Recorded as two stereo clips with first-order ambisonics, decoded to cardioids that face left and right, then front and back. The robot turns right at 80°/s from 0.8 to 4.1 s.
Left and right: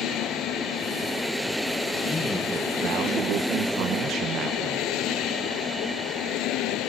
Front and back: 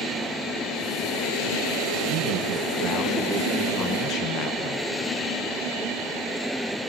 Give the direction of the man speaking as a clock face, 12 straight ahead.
7 o'clock.